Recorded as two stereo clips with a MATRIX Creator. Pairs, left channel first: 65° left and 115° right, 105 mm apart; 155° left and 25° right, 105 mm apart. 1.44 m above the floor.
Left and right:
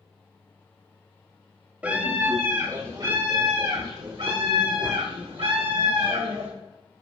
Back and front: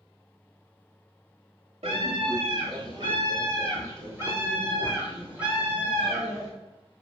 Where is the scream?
35° right, 2.5 m; by 6.5 s 105° right, 5.5 m.